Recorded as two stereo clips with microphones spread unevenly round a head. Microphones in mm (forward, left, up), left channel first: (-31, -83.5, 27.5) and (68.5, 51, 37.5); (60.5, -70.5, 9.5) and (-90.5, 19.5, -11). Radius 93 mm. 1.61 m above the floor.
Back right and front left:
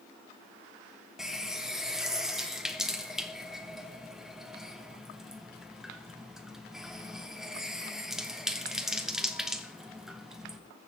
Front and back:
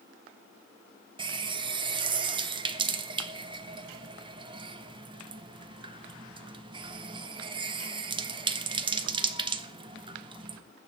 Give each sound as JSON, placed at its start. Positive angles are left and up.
{"t": 1.2, "sound": "a running tap", "azimuth_deg": 130, "distance_m": 0.7}